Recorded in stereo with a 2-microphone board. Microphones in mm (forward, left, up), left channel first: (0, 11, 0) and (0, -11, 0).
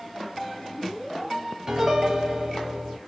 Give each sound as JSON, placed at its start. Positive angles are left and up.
{"t": 1.7, "sound": "a piano", "side_deg": -30, "distance_m": 0.7}